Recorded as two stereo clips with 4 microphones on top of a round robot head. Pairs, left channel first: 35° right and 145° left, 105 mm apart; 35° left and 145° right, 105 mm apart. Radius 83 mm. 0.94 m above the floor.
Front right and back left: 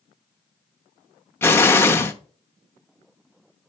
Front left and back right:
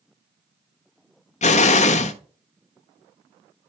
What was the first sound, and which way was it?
An explosion, 35° left.